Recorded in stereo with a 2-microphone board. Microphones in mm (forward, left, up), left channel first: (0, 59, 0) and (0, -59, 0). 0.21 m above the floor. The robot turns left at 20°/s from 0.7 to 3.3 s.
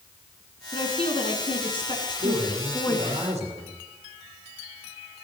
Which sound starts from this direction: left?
A woman speaking, at 0.7 s.